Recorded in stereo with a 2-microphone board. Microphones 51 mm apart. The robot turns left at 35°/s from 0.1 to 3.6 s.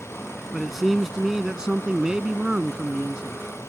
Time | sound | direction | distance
0.5 | a man speaking | centre (ahead or behind) | ?